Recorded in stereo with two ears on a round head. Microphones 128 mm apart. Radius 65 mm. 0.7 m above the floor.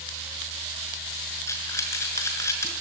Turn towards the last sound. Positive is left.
turn(degrees=20)  # may be behind; listen again after turning